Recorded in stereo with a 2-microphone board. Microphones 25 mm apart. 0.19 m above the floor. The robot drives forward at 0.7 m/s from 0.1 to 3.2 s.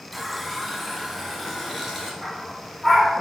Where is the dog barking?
5° right (ahead or behind), 2.5 m.